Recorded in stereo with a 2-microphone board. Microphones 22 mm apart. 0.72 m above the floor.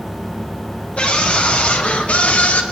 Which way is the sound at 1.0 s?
60° left (ahead or behind).